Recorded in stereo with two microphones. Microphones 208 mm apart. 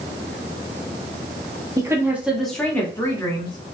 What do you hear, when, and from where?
1.8 s a woman speaking: 15° right (ahead or behind), 1.0 m; by 3.7 s 25° left (ahead or behind), 1.4 m